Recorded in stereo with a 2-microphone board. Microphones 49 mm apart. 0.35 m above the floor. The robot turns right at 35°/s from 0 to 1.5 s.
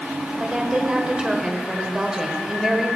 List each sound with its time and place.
0.4 s a woman speaking: 25° right (ahead or behind), 1.2 m; by 2.9 s 10° right (ahead or behind), 1.2 m